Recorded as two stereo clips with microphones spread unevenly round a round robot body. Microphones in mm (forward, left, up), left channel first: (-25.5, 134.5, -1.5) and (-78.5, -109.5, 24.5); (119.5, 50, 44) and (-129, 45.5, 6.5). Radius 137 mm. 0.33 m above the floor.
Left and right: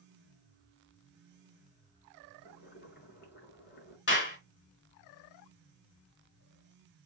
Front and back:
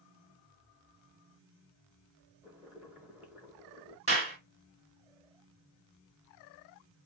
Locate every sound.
2.4 s boiling: 105° left, 1.7 m
4.1 s a clap: 120° left, 3 m